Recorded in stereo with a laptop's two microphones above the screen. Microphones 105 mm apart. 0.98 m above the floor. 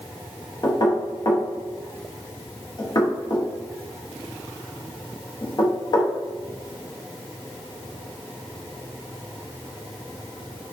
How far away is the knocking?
About 0.6 m.